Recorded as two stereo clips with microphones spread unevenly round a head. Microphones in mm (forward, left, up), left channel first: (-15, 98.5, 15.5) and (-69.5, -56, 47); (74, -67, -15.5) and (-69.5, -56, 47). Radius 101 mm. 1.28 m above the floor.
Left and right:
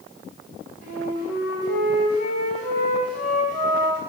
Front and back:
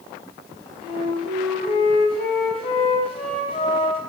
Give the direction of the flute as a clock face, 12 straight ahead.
2 o'clock.